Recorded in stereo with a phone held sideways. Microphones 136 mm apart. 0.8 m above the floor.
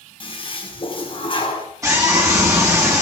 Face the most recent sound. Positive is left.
turn(degrees=-20)  # may be behind; listen again after turning